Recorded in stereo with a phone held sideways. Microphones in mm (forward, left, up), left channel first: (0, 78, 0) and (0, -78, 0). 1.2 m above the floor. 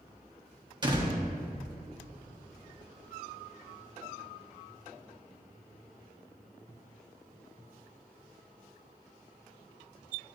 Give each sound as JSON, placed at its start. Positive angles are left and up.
{"t": 0.8, "sound": "a door slam", "side_deg": -30, "distance_m": 1.5}